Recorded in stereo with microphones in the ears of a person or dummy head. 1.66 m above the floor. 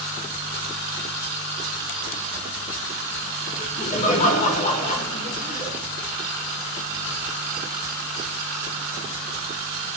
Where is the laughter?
40° left (ahead or behind), 3 m.